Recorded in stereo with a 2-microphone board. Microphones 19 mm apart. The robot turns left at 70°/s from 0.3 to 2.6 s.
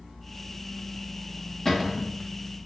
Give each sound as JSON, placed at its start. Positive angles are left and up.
{"t": 1.6, "sound": "a cupboard door", "azimuth_deg": 35, "distance_m": 1.1}